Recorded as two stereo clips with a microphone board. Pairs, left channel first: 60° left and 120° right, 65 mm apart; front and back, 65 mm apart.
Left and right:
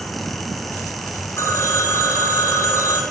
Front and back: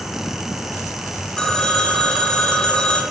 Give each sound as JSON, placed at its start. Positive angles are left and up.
{"t": 1.4, "sound": "a phone ringing", "azimuth_deg": 75, "distance_m": 1.5}